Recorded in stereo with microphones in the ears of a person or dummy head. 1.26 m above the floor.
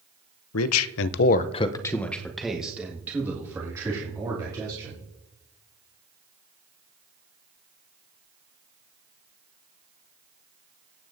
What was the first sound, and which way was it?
A man speaking, 80° left.